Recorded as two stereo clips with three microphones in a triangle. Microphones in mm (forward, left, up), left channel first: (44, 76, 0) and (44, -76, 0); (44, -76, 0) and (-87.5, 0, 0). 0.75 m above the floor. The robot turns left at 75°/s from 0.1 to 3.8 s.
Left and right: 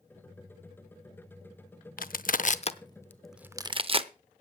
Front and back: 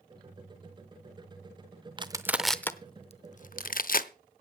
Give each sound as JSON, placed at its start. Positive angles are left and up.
{"t": 2.0, "sound": "crushing", "azimuth_deg": 95, "distance_m": 0.7}